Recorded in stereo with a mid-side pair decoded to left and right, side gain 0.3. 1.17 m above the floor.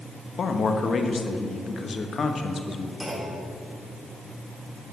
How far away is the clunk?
About 3 m.